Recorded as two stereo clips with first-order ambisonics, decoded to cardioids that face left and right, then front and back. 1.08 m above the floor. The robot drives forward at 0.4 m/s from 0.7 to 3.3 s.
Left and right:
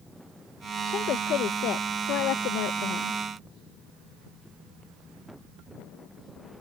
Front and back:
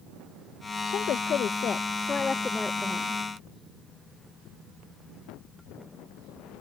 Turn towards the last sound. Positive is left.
turn(degrees=100)